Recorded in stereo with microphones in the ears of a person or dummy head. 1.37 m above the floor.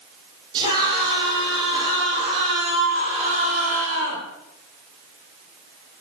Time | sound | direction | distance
0.5 | a scream | 25° right (ahead or behind) | 9.5 m